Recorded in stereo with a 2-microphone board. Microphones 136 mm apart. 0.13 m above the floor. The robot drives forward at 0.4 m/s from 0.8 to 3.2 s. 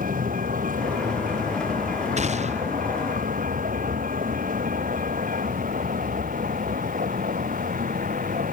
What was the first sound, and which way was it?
A vehicle, 85° right.